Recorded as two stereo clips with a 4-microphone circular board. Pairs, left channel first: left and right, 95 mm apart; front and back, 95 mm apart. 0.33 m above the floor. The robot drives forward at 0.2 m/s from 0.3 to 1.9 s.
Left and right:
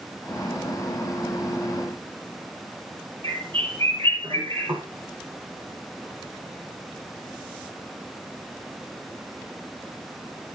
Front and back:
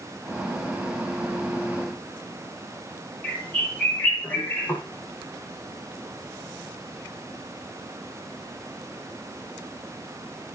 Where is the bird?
75° right, 8 m.